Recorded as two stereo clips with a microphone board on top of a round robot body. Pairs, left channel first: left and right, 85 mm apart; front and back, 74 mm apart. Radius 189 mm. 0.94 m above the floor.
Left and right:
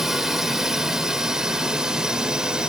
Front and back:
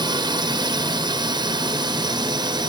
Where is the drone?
175° right; by 2.7 s 170° right.